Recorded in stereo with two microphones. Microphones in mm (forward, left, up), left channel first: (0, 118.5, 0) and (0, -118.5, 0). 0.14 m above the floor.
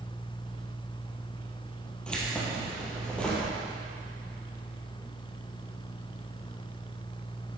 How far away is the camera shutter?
No camera shutter in this recording.